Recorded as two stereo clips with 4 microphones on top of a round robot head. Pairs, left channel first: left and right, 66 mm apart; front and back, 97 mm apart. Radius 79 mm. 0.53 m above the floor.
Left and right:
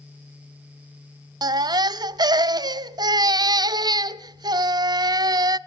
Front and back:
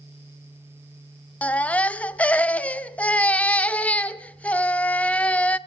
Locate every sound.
1.4 s a baby crying: 75° right, 0.5 m